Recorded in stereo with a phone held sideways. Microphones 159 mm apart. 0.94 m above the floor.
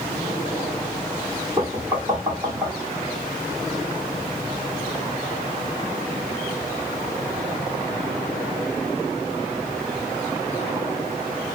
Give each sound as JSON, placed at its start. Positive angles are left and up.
{"t": 1.6, "sound": "knocking", "side_deg": -25, "distance_m": 1.7}